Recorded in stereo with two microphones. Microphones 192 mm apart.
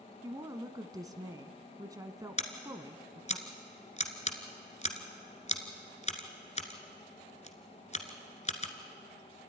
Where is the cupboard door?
No cupboard door in this recording.